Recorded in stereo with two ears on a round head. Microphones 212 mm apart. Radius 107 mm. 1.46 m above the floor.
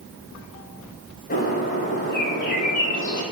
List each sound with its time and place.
1.3 s a bird: 40° left (ahead or behind), 7 m